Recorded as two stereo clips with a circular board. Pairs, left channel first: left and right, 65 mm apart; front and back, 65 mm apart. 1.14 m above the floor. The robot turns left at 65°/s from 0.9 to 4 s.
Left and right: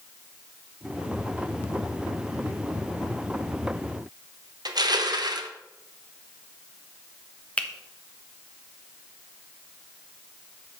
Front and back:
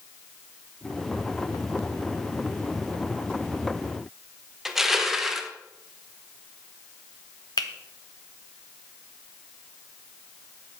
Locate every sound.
4.7 s crushing: 95° right, 0.9 m
7.6 s a finger snap: 15° left, 0.9 m